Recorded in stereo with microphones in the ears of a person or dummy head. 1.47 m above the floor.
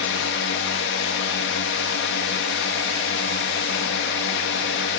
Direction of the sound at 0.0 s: 60° left (ahead or behind).